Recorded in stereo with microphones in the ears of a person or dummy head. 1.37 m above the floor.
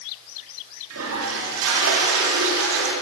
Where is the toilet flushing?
85° right, 2.5 m.